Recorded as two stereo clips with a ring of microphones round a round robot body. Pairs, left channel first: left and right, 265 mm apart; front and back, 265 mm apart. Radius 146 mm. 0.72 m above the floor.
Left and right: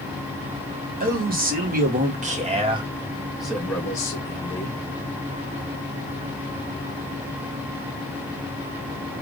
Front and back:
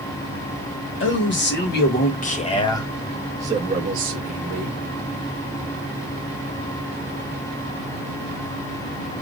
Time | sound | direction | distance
1.0 | a man speaking | 40° right | 1.3 m